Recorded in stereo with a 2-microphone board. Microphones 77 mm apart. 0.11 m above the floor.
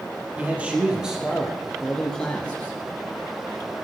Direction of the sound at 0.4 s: 20° right (ahead or behind).